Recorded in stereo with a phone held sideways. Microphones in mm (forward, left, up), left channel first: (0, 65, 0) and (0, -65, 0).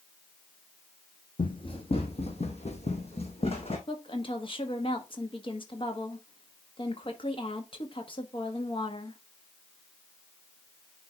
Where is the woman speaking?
40° left (ahead or behind), 1.4 m.